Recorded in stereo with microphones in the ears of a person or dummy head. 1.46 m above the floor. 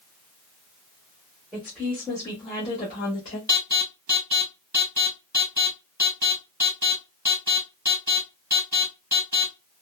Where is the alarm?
10° right (ahead or behind), 1.7 m.